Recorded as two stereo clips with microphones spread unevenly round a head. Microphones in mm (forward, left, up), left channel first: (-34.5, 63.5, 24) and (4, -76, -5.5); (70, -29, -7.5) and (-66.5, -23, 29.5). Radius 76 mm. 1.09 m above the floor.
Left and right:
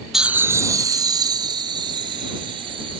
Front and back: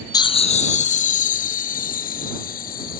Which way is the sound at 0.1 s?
Straight ahead.